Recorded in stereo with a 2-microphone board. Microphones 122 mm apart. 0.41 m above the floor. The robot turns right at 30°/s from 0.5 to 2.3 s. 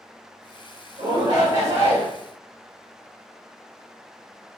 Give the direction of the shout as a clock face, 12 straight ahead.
2 o'clock.